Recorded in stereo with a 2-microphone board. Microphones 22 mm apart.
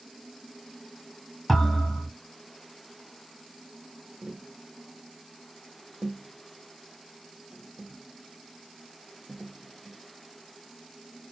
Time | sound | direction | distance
1.5 | a thud | 5° left (ahead or behind) | 2.5 m
4.2 | tapping | 60° right (ahead or behind) | 0.6 m